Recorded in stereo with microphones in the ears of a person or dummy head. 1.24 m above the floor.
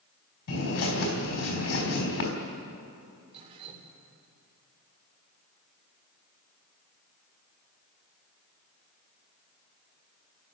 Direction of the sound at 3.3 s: 30° right (ahead or behind).